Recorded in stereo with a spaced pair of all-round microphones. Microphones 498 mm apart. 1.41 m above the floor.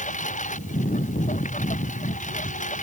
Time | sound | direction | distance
0.0 | a lawn mower | 15° left (ahead or behind) | ?